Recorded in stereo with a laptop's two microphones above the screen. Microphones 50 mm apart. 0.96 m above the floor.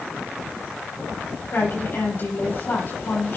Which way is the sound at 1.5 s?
50° left (ahead or behind).